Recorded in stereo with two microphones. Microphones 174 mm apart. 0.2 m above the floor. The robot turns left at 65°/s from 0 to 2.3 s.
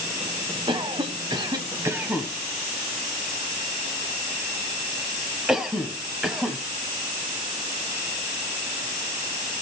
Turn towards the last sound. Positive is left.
turn(degrees=0)  # may be behind; listen again after turning